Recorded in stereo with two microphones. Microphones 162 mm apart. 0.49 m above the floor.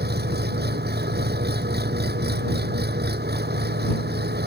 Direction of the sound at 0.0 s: 85° right.